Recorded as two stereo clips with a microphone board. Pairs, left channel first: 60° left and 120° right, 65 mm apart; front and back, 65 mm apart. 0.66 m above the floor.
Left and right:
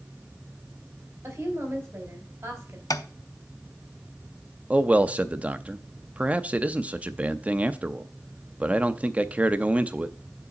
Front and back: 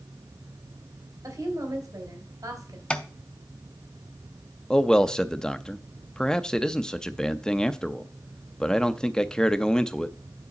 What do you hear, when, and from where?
1.2 s a woman speaking: straight behind, 2.5 m
2.9 s tapping: 70° left, 0.6 m
4.7 s a man speaking: 70° right, 0.5 m